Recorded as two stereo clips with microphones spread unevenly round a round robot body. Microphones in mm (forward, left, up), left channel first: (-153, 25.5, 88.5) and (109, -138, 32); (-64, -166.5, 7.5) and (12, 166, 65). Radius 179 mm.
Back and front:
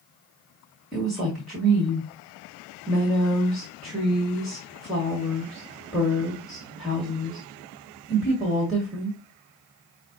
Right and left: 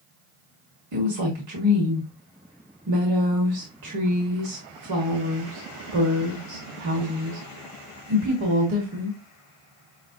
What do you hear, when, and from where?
0.9 s a woman speaking: 50° left, 1.6 m